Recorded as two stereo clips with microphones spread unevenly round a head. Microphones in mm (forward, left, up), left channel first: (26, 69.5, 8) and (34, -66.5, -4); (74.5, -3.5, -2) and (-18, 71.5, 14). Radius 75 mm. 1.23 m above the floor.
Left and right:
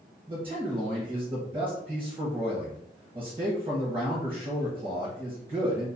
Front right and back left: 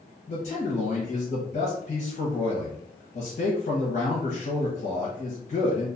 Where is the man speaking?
40° right, 0.7 m.